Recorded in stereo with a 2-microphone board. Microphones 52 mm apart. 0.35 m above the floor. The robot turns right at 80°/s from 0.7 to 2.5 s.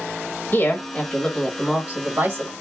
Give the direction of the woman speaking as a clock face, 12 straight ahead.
8 o'clock.